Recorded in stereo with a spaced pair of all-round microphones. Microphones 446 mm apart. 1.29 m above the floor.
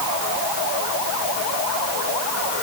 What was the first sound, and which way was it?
Only background noise.